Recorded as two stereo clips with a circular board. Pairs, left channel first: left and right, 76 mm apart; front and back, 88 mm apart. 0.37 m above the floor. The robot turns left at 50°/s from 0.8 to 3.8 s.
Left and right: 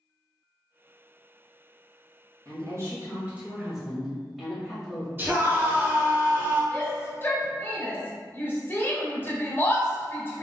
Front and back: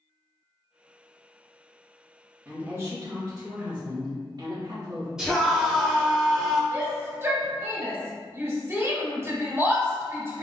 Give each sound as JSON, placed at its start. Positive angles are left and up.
{"t": 2.5, "sound": "a woman speaking", "azimuth_deg": -110, "distance_m": 1.9}
{"t": 5.2, "sound": "a scream", "azimuth_deg": -105, "distance_m": 1.3}
{"t": 6.7, "sound": "a shout", "azimuth_deg": 130, "distance_m": 1.4}